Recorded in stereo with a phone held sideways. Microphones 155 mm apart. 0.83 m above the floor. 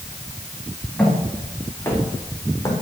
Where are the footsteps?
10° left (ahead or behind), 4.5 m; by 2.7 s 25° left (ahead or behind), 4 m.